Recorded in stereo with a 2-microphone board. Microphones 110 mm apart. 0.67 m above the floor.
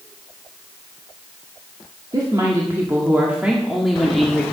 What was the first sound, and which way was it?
A woman speaking, 40° right (ahead or behind).